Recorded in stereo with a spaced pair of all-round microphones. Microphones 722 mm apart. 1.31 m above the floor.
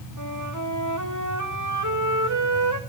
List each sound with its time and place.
0.2 s a flute: 25° right (ahead or behind), 2 m